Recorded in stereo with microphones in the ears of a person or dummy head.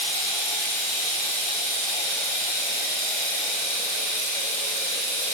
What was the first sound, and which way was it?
Running water, 60° right (ahead or behind).